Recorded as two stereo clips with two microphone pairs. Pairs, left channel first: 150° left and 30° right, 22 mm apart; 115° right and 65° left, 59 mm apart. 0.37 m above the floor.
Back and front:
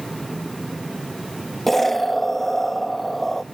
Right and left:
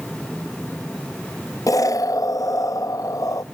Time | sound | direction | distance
1.7 | an explosion | 125° right | 0.5 m